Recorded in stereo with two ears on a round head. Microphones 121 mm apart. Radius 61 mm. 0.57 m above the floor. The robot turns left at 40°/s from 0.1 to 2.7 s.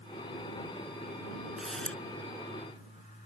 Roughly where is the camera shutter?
Centre.